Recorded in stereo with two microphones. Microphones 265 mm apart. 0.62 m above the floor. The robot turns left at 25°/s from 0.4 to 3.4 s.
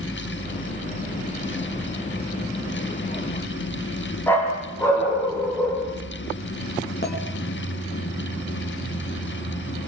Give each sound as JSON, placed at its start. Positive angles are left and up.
{"t": 4.3, "sound": "a dog barking", "side_deg": 10, "distance_m": 6.5}
{"t": 7.0, "sound": "a clink", "side_deg": 40, "distance_m": 4.0}